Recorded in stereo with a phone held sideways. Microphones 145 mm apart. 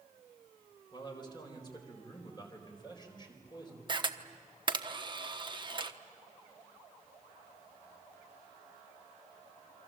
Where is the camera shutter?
35° right (ahead or behind), 1.1 m.